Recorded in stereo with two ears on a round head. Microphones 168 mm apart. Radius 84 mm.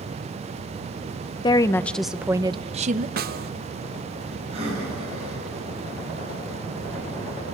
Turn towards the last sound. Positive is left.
turn(degrees=-35)  # may be behind; listen again after turning